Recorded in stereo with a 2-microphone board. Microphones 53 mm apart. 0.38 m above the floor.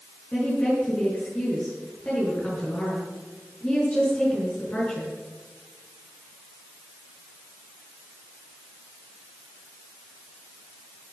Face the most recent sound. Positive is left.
turn(degrees=30)  # may be behind; listen again after turning